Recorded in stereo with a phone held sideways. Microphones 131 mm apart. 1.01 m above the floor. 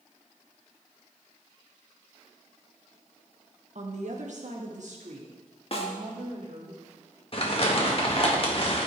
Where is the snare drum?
45° left (ahead or behind), 1.7 m.